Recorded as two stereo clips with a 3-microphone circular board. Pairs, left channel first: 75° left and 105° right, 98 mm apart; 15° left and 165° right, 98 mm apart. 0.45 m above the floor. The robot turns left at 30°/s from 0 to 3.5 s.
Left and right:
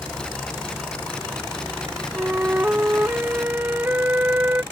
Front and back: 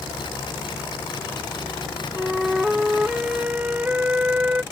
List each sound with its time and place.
2.1 s a flute: 80° right; by 4.6 s 120° right